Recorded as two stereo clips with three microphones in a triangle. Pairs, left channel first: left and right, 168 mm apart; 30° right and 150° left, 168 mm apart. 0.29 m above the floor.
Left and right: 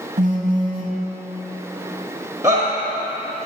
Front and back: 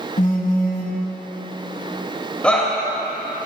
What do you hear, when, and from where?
0.2 s a phone buzzing: 60° right, 0.9 m
2.4 s a shout: 95° right, 1.3 m